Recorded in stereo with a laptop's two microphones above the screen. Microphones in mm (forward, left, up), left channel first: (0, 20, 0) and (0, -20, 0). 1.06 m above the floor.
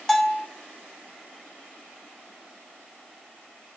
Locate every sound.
0.1 s a bell: 10° left (ahead or behind), 0.6 m